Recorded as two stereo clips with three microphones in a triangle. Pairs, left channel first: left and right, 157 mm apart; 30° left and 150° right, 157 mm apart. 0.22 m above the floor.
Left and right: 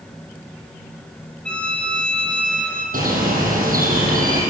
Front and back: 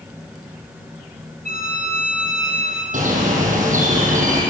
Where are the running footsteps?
I don't hear running footsteps.